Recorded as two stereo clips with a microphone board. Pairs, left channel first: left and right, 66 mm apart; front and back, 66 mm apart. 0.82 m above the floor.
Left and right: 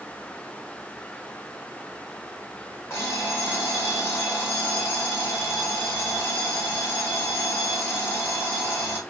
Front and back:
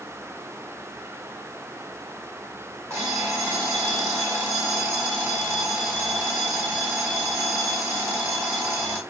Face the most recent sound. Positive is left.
turn(degrees=135)